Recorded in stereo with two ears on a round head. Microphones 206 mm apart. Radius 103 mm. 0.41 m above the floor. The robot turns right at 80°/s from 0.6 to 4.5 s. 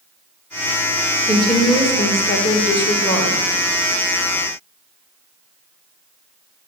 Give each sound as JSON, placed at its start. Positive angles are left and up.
{"t": 1.3, "sound": "a woman speaking", "azimuth_deg": -5, "distance_m": 1.0}